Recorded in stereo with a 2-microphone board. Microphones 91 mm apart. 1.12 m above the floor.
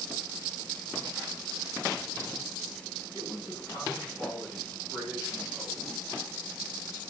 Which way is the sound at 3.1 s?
65° left (ahead or behind).